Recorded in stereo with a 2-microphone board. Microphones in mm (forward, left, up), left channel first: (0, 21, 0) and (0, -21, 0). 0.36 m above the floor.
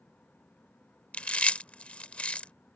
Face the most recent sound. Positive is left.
turn(degrees=30)  # may be behind; listen again after turning